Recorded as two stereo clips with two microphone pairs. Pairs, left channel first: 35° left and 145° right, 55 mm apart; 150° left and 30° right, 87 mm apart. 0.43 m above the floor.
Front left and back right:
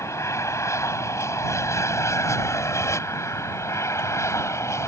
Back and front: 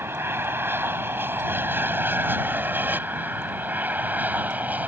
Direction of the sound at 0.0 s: 30° left.